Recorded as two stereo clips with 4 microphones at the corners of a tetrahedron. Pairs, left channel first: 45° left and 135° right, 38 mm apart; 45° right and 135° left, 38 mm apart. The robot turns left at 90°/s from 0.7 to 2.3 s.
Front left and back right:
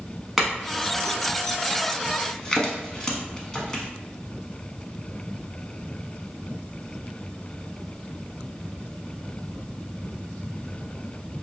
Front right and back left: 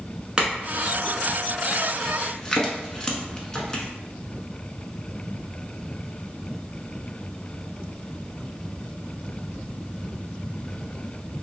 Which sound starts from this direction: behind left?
A clink, at 0.4 s.